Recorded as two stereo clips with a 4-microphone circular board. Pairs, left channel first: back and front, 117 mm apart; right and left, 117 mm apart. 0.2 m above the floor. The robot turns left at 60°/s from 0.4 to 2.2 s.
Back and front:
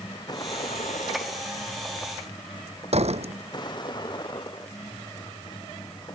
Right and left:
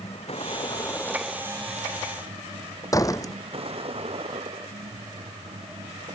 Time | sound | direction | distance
0.0 | a vehicle | 125° right | ?
2.9 | a door slam | 30° right | ?